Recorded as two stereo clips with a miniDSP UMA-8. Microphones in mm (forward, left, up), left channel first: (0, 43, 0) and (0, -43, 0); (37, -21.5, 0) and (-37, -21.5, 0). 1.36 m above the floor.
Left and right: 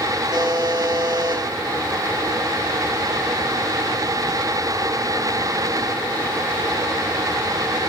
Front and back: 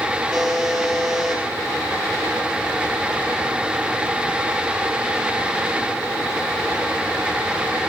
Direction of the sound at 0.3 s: 95° right.